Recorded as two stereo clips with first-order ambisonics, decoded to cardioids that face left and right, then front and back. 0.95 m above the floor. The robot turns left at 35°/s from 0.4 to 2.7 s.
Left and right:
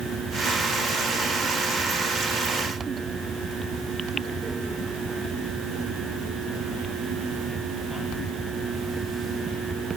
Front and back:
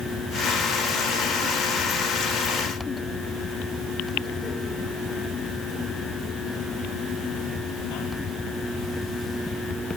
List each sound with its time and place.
Only background noise.